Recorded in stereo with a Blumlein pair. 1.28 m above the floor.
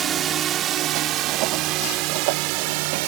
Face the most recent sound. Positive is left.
turn(degrees=-45)